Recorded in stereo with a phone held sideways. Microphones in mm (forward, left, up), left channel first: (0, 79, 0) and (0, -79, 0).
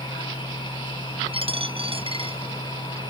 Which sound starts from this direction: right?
A dropped coin, at 1.3 s.